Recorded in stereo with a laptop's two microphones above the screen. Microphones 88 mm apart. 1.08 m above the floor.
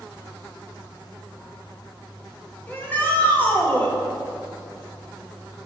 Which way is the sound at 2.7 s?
20° left (ahead or behind).